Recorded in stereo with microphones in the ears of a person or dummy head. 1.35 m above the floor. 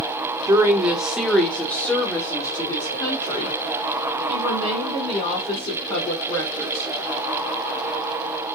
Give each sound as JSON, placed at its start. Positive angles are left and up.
{"t": 0.5, "sound": "a woman speaking", "side_deg": -15, "distance_m": 1.2}